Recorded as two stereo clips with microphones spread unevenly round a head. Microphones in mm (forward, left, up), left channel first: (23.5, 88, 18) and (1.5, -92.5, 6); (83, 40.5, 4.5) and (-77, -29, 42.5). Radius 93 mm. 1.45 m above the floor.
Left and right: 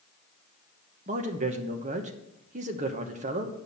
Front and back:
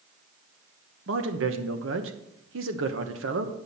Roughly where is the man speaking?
Behind right.